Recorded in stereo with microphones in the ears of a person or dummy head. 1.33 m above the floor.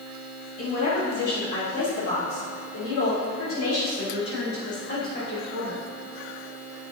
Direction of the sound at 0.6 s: 45° left (ahead or behind).